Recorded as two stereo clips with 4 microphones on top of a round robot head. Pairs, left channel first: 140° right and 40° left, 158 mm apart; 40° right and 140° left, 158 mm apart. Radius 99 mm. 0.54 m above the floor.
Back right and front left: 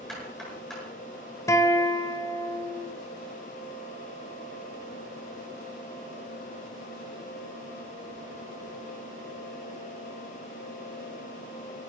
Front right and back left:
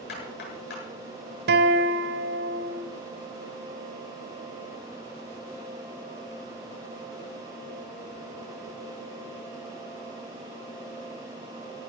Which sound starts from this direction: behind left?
A guitar, at 1.5 s.